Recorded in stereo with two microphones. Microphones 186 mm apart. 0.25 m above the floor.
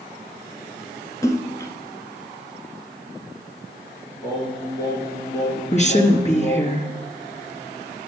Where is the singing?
15° left (ahead or behind), 7 m.